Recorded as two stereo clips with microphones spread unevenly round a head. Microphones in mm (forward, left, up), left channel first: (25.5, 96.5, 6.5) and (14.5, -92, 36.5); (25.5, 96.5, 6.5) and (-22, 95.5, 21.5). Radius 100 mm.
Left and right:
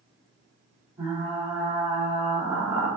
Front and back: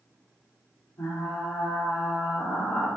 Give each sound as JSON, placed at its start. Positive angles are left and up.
{"t": 1.0, "sound": "frying", "azimuth_deg": -20, "distance_m": 3.0}